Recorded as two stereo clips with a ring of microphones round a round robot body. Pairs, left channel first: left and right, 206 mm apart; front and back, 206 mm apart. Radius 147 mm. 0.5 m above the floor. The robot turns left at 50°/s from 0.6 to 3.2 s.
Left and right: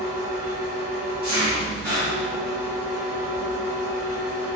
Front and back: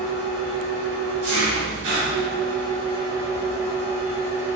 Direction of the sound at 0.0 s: 125° right.